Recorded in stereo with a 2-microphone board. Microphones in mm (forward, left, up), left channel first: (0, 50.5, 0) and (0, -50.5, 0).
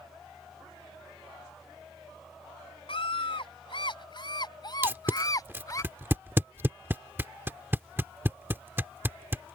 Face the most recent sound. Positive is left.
turn(degrees=-20)  # may be behind; listen again after turning